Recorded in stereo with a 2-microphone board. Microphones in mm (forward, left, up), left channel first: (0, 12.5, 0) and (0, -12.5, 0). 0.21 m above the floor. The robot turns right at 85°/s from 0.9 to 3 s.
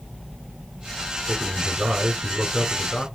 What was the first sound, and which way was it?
A man speaking, 110° right.